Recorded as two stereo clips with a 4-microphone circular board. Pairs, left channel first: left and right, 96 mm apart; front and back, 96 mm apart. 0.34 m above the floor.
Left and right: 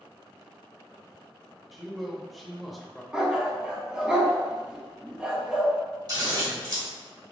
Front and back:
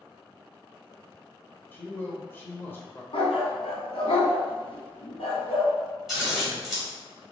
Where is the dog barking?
10° right, 1.0 m.